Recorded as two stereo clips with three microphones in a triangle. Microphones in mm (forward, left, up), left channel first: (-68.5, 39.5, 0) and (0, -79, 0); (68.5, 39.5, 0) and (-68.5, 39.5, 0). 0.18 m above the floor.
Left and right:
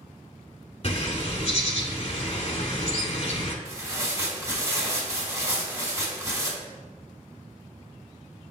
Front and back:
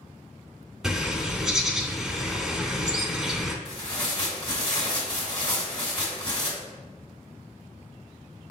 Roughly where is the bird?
Left.